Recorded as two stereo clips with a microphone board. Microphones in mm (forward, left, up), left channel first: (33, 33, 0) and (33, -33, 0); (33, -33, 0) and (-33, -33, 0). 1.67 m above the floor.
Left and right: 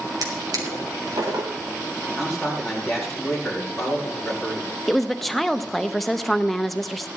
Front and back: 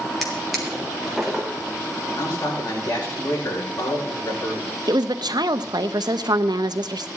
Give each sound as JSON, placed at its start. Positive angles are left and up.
{"t": 0.2, "sound": "a drawer", "azimuth_deg": -90, "distance_m": 3.5}
{"t": 2.1, "sound": "a man speaking", "azimuth_deg": 5, "distance_m": 7.5}
{"t": 4.9, "sound": "a woman speaking", "azimuth_deg": 180, "distance_m": 0.8}